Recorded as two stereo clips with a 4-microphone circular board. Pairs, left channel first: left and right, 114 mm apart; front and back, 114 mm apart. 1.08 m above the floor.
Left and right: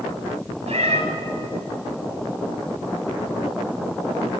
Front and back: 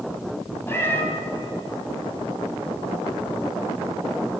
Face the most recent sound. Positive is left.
turn(degrees=-70)